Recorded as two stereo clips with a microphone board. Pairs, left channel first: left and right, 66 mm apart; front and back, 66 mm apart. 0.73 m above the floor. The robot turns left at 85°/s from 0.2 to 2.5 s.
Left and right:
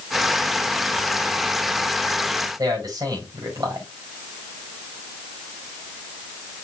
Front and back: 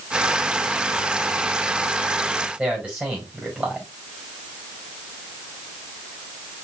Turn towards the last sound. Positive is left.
turn(degrees=-110)